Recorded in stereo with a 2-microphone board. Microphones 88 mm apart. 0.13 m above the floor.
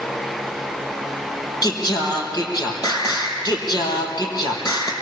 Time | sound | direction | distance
1.6 | singing | 45° left (ahead or behind) | 4 m